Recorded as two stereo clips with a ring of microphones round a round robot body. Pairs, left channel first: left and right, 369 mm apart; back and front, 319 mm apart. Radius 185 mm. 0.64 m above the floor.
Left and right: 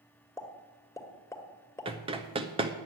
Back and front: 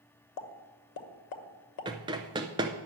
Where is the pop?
170° left, 1.2 m.